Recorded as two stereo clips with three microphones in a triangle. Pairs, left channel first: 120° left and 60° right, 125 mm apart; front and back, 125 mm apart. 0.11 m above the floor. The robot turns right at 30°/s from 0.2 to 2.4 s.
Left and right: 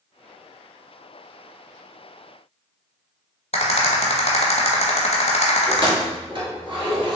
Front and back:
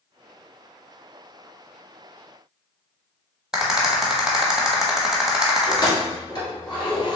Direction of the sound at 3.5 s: 95° left.